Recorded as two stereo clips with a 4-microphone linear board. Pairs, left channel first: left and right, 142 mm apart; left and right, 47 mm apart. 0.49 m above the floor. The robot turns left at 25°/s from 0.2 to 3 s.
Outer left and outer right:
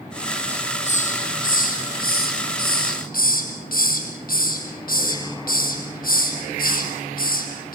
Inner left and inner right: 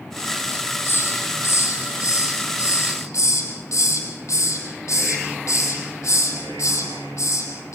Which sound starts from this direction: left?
A hiss, at 0.5 s.